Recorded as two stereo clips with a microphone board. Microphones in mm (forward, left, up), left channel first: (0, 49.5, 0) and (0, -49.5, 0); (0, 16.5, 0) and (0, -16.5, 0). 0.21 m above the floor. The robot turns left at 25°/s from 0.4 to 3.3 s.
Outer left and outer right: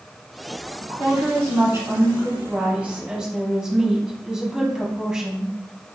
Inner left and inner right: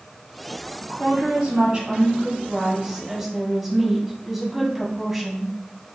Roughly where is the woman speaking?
Right.